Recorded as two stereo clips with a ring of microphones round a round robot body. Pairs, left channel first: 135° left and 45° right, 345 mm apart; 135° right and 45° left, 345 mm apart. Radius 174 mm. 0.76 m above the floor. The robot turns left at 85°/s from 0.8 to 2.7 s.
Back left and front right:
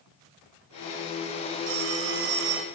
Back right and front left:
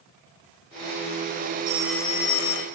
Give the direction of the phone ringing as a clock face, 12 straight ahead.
1 o'clock.